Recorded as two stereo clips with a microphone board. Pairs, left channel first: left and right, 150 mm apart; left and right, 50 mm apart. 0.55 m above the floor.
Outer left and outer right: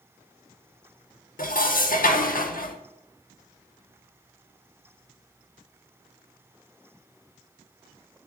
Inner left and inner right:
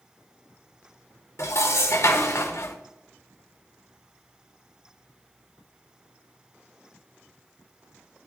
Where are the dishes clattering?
70° left (ahead or behind), 0.8 m.